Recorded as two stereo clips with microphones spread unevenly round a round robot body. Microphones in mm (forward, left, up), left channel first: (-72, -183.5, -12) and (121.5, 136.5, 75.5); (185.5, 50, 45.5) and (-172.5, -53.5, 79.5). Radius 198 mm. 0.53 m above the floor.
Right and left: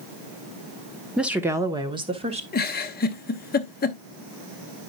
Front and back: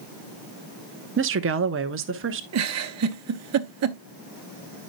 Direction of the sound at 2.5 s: 140° right.